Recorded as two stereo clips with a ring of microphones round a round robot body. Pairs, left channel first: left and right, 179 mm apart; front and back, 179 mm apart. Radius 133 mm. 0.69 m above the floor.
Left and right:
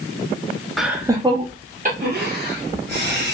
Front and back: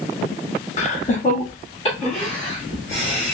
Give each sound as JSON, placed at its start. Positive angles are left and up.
{"t": 0.8, "sound": "laughter", "azimuth_deg": 0, "distance_m": 0.9}